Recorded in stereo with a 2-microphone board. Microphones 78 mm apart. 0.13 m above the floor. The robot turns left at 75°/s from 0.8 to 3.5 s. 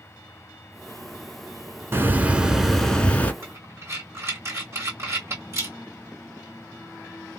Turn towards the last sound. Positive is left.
turn(degrees=-35)  # may be behind; listen again after turning